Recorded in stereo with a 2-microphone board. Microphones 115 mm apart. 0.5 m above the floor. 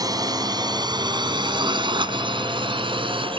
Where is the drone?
35° right (ahead or behind); by 3.4 s 50° right (ahead or behind).